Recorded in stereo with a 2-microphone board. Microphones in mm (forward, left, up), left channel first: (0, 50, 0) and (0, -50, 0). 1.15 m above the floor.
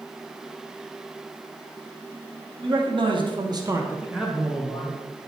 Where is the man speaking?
55° right (ahead or behind), 1.6 m; by 5.0 s 20° left (ahead or behind), 1.6 m.